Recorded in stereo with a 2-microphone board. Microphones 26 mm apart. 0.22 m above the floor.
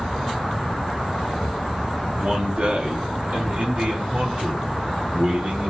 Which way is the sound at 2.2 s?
55° right (ahead or behind).